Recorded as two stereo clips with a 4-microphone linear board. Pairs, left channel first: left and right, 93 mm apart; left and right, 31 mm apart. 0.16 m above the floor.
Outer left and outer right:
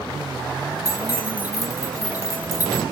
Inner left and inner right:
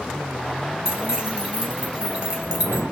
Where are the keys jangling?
25° right (ahead or behind), 0.9 m.